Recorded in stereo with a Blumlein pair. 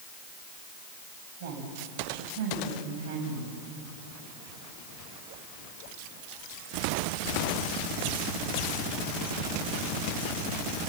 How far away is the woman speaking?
About 7 m.